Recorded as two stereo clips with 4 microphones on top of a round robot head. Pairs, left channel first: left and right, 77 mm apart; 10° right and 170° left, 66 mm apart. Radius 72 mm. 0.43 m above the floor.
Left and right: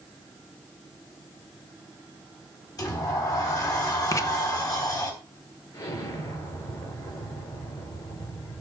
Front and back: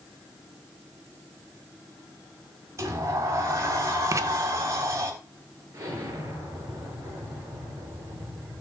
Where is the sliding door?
130° left, 4 m.